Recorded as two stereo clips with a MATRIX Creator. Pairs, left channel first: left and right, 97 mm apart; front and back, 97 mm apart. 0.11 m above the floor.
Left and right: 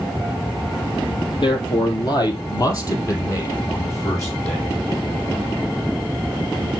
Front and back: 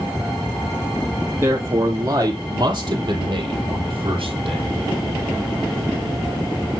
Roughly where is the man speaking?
Behind left.